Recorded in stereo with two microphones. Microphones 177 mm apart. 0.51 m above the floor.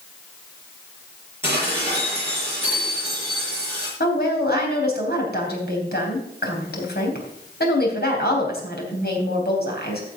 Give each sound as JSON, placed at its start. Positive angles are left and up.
{"t": 1.4, "sound": "dishes clattering", "side_deg": -15, "distance_m": 7.0}
{"t": 4.0, "sound": "a woman speaking", "side_deg": 65, "distance_m": 3.5}